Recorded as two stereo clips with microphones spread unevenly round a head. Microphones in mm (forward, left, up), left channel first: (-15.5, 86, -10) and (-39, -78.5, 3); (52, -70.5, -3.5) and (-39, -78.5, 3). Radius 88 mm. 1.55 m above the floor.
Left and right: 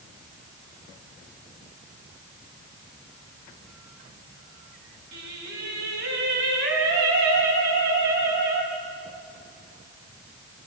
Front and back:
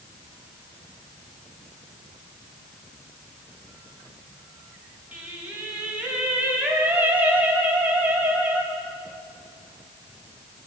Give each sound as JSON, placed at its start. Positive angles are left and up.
{"t": 5.1, "sound": "singing", "azimuth_deg": -105, "distance_m": 5.0}